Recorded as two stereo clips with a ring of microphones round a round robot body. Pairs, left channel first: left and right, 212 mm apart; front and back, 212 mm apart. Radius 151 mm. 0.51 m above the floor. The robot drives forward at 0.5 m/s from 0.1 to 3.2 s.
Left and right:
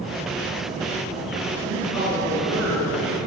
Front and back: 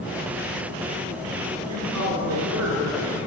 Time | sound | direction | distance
1.6 | a woman speaking | 140° right | 5 m